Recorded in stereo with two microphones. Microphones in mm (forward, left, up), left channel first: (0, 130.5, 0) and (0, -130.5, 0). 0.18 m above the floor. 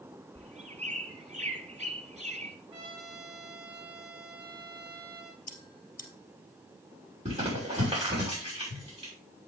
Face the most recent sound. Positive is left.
turn(degrees=-25)  # may be behind; listen again after turning